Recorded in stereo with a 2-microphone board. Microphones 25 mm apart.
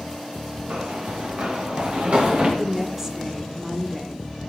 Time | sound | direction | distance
0.7 | running footsteps | 65° right (ahead or behind) | 4 m
2.6 | a woman speaking | 10° right (ahead or behind) | 1.7 m